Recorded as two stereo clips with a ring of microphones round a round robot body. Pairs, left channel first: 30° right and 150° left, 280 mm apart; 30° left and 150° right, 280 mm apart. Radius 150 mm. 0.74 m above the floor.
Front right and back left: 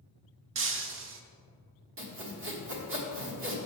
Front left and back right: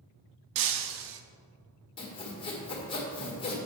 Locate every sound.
0.6 s breaking glass: 160° right, 0.7 m
2.0 s sawing: 105° left, 1.5 m